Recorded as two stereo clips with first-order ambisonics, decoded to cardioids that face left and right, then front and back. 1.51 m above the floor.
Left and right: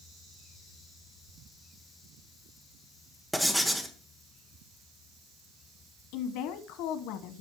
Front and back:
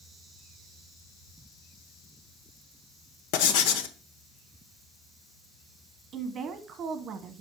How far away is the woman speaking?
About 1.1 m.